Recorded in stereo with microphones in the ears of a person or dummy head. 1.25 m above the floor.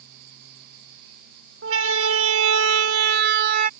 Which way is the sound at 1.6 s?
80° right.